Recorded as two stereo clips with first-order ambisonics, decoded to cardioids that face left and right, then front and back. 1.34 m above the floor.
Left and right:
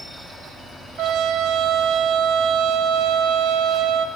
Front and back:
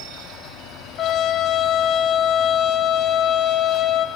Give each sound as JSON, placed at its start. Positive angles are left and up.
{"t": 1.0, "sound": "a trumpet", "azimuth_deg": -50, "distance_m": 0.6}